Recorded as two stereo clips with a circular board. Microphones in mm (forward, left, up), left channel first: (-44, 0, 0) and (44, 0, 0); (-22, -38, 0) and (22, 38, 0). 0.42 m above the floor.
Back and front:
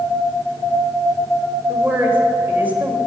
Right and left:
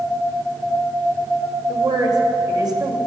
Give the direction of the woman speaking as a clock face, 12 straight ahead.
10 o'clock.